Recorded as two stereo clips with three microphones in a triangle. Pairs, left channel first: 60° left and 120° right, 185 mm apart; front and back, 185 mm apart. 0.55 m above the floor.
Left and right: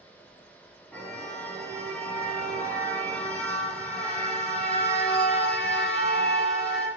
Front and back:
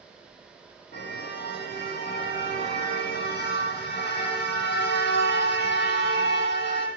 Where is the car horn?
20° right, 9 m.